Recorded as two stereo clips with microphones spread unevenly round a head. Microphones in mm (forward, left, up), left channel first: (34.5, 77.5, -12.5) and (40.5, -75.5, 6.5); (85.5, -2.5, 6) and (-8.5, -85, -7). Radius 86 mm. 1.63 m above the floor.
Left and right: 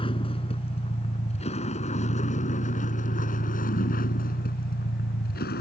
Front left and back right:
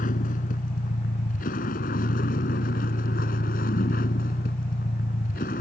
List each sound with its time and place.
0.0 s a vehicle: 35° left; by 5.6 s 75° left